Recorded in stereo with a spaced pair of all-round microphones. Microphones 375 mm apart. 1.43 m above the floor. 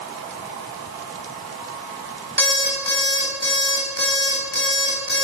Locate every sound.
2.4 s an alarm clock: 30° right (ahead or behind), 4.5 m